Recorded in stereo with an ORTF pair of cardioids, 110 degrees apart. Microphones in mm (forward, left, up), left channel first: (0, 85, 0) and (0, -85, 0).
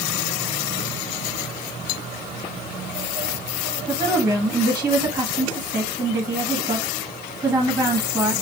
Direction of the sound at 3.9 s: 10° right.